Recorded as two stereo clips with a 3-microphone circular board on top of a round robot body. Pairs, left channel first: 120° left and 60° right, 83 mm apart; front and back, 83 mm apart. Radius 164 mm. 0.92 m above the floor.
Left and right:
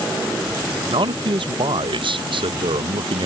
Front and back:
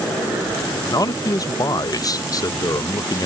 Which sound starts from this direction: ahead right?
A man speaking, at 0.9 s.